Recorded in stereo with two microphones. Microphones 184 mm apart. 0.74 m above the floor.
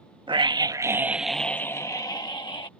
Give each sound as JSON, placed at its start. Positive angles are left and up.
{"t": 0.3, "sound": "a scream", "side_deg": -25}